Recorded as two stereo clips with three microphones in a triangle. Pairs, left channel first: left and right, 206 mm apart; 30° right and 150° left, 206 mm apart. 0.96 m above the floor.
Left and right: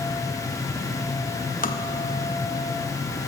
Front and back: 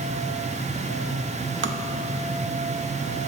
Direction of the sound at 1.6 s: 135° left.